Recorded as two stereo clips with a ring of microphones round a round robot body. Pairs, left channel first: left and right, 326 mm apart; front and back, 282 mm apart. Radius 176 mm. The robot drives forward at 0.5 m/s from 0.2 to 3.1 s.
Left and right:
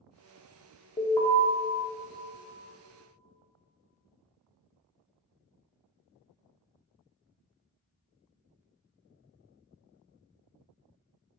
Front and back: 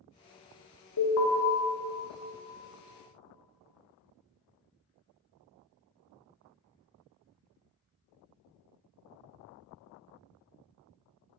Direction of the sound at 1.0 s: 10° left.